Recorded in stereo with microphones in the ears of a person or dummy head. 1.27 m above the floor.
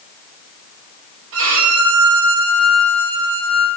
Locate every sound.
1.3 s a violin: 65° right (ahead or behind), 1.0 m